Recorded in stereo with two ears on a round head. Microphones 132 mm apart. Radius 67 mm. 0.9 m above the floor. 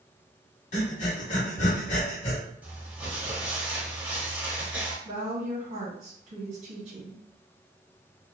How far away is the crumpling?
About 1.0 m.